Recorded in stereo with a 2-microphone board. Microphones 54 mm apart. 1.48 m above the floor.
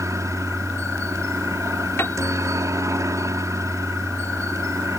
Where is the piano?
50° left (ahead or behind).